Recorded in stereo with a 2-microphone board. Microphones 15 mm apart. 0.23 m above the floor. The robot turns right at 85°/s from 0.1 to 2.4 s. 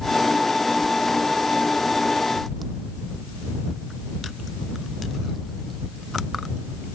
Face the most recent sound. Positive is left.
No sound to turn to.